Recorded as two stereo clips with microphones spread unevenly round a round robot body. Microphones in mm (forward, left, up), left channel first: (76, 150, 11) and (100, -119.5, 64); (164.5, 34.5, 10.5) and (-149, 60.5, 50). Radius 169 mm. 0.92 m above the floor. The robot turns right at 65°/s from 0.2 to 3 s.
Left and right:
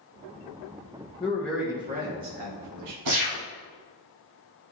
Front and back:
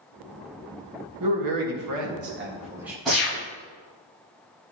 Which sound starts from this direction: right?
A gunshot, at 3.0 s.